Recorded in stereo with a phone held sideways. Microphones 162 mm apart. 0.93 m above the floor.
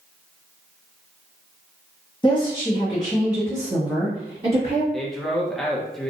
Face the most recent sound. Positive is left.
turn(degrees=0)  # may be behind; listen again after turning